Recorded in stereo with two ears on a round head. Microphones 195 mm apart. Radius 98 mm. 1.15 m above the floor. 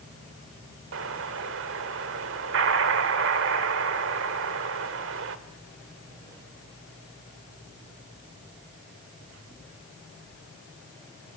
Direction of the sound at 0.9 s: 60° right (ahead or behind).